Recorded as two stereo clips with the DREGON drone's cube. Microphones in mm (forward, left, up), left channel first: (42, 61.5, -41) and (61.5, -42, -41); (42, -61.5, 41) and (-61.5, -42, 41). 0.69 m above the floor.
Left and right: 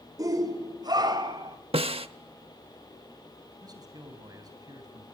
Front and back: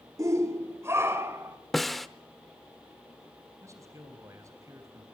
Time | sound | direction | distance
0.2 | a shout | 130° right | 2 m
1.7 | a snare drum | 100° right | 0.8 m
3.6 | a man speaking | 130° right | 3.5 m